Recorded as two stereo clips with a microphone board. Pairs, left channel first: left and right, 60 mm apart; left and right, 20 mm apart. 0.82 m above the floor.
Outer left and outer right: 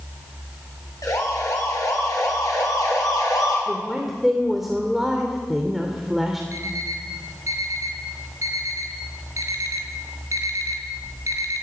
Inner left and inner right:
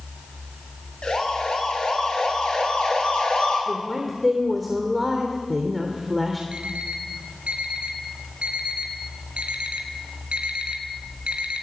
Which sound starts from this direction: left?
A siren, at 1.0 s.